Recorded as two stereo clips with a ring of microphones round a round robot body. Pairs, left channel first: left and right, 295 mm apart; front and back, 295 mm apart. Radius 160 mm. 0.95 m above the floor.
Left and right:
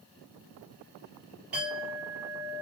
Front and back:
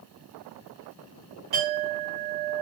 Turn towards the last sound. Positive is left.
turn(degrees=-175)